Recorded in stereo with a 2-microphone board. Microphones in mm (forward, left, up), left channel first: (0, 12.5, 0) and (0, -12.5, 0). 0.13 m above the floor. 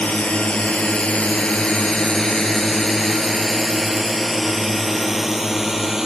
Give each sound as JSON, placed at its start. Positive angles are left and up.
{"t": 0.0, "sound": "a drone", "side_deg": 60}